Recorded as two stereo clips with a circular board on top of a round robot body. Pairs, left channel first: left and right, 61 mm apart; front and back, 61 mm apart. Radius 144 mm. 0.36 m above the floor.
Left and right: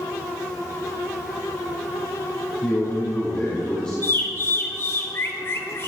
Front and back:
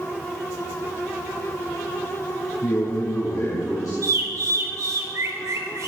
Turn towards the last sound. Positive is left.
turn(degrees=145)